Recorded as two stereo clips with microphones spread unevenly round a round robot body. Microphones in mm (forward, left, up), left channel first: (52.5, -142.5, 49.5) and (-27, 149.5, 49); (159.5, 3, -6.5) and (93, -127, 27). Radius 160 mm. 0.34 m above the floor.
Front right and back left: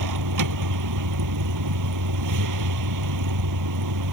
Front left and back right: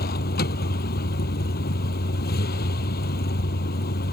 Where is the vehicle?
80° left.